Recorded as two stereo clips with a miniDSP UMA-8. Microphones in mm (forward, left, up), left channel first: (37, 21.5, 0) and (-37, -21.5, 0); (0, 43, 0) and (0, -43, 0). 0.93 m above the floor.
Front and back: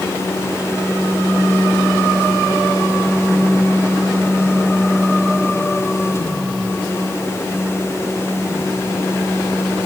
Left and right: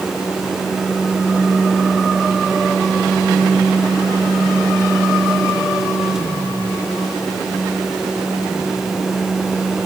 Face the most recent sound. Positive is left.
No sound to turn to.